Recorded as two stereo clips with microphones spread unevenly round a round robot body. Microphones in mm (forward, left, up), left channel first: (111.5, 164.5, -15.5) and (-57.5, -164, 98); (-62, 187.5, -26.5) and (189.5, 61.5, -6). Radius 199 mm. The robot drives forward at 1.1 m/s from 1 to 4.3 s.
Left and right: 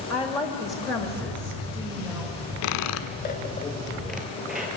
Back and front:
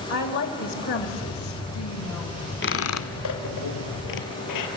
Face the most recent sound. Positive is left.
turn(degrees=155)